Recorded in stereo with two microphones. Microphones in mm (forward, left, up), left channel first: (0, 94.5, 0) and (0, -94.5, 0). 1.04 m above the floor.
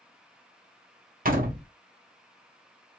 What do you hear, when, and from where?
1.2 s a door slam: 50° right (ahead or behind), 1.0 m